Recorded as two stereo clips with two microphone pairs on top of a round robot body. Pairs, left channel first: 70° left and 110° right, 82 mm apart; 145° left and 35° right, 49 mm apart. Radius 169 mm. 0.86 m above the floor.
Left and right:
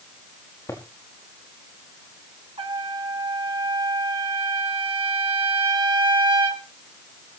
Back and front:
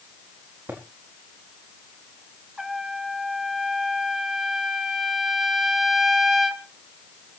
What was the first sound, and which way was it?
Footsteps, 15° left.